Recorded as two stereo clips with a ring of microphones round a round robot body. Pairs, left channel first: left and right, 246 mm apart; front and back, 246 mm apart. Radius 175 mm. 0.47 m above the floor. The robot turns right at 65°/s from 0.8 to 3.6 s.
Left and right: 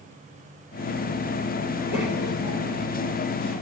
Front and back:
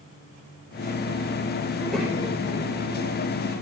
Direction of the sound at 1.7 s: 75° left.